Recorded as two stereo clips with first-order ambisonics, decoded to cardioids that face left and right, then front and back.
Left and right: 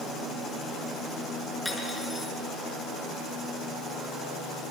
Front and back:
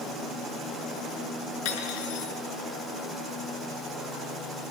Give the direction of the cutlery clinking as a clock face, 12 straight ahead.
12 o'clock.